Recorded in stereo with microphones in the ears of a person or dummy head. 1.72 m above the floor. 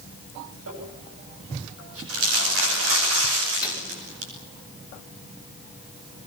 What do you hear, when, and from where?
0.7 s crumpling: 85° right, 9.5 m
3.6 s a microwave: 10° right (ahead or behind), 5 m